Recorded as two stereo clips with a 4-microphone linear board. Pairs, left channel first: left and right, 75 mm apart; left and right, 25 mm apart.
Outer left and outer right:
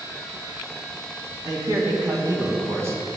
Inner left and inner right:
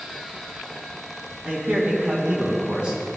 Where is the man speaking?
65° right (ahead or behind), 2 m; by 3.0 s 35° right (ahead or behind), 1.9 m.